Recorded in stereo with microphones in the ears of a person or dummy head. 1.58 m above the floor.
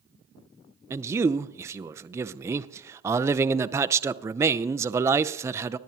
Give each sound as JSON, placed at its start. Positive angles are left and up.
{"t": 0.9, "sound": "a man speaking", "side_deg": -20, "distance_m": 0.5}